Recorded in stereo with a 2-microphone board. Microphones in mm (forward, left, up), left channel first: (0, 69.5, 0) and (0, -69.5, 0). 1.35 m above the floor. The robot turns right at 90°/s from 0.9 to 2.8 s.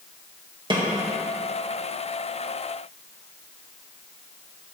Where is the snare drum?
35° right (ahead or behind), 1.7 m.